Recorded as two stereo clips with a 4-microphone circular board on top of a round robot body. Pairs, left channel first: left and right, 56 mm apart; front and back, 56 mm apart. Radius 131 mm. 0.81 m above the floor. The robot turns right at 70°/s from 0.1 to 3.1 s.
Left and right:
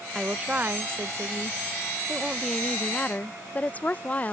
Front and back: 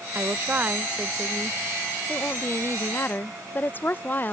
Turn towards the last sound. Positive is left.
turn(degrees=40)